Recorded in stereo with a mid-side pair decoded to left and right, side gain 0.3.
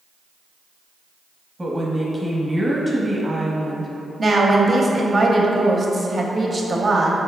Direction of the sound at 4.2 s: 45° right.